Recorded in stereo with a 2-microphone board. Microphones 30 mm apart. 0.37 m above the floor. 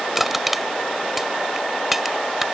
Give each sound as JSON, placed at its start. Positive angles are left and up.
{"t": 0.1, "sound": "crushing", "side_deg": -10}